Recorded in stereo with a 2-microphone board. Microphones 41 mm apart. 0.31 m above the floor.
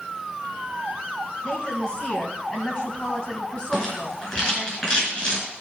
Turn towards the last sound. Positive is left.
turn(degrees=30)  # may be behind; listen again after turning